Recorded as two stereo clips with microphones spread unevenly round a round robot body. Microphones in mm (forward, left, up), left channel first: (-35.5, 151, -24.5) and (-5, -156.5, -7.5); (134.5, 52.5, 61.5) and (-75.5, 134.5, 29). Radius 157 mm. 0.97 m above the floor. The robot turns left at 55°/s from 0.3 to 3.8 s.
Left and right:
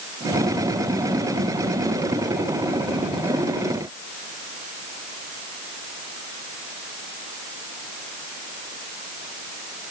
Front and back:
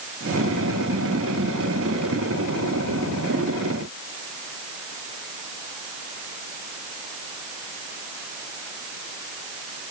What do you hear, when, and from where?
Only background noise.